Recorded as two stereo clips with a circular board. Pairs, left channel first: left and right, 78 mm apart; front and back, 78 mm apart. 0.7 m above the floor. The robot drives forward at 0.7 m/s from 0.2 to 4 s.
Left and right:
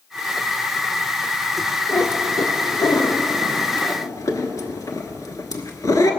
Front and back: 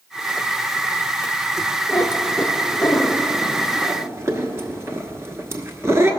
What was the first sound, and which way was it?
A cat meowing, 45° left.